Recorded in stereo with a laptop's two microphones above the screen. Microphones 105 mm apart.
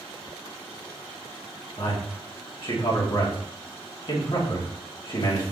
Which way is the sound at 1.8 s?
55° left (ahead or behind).